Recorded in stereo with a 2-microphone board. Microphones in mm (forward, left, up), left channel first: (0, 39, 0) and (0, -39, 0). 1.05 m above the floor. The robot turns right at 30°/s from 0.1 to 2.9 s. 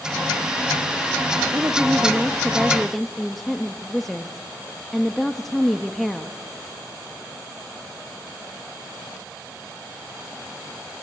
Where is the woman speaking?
40° right, 1.3 m; by 6.4 s straight ahead, 1.3 m.